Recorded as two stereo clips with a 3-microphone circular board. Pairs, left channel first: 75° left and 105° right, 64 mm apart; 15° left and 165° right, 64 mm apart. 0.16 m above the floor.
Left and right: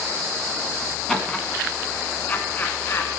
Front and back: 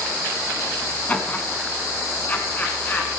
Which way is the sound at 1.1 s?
Straight ahead.